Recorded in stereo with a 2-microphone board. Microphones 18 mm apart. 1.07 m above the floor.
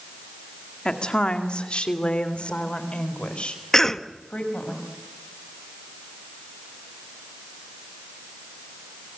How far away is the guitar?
No guitar in this recording.